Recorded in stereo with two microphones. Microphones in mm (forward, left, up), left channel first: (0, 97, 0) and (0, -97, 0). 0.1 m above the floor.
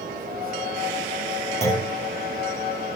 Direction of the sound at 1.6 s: 30° left (ahead or behind).